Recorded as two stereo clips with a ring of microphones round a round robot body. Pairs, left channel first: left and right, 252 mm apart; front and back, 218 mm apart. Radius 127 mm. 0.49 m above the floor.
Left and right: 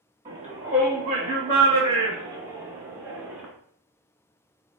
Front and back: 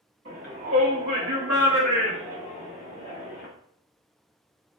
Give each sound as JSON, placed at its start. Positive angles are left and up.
{"t": 0.2, "sound": "a shout", "azimuth_deg": -155, "distance_m": 1.2}